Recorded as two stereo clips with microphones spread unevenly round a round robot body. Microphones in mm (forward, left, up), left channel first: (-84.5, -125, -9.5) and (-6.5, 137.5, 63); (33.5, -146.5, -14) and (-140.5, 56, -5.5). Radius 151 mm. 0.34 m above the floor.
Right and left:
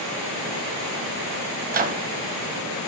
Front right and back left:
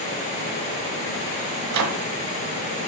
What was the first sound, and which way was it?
A microwave, 135° left.